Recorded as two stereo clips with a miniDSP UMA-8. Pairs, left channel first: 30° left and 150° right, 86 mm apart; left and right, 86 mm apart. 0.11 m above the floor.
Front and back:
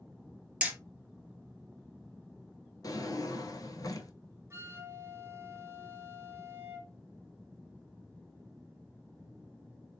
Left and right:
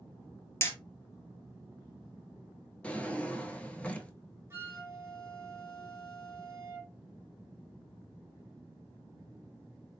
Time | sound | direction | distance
0.6 | hammering | 140° left | 0.9 m
2.8 | a drawer | 20° left | 0.7 m
4.5 | a flute | 120° right | 1.1 m